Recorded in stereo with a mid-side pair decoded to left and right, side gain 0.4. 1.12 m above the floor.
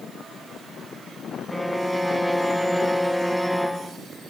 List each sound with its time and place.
1.5 s a violin: 5° right, 0.6 m